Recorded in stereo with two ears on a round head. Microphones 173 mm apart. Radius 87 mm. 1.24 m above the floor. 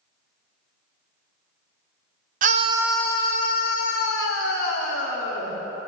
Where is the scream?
45° right (ahead or behind), 0.7 m; by 5.5 s 80° left, 2.5 m.